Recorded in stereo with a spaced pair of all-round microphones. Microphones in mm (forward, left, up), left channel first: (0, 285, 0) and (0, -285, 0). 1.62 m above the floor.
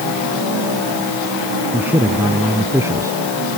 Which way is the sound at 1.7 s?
5° right (ahead or behind).